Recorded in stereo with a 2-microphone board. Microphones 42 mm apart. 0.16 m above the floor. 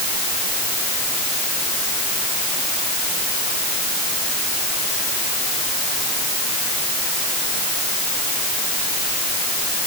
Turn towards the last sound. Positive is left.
No sound to turn to.